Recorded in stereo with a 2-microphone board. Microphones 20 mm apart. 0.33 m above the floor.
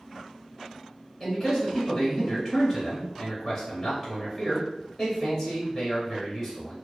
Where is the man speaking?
15° left (ahead or behind), 1.1 m.